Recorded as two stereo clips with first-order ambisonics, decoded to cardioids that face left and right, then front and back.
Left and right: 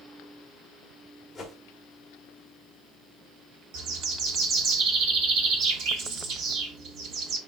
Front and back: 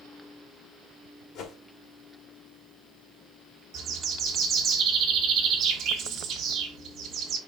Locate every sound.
1.4 s a whoosh: 10° left, 1.3 m
3.7 s a bird: 120° right, 1.1 m